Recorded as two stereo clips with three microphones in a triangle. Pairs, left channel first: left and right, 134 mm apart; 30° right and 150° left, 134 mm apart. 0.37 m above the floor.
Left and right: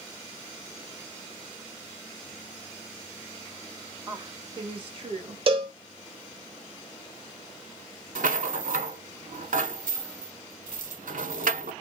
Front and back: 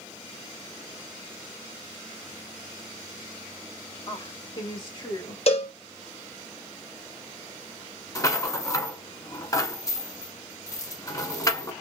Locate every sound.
4.1 s a woman speaking: 40° right, 1.8 m; by 5.4 s 75° right, 2 m
5.5 s a cowbell: 55° right, 1.0 m
8.2 s a rattle: 95° right, 0.8 m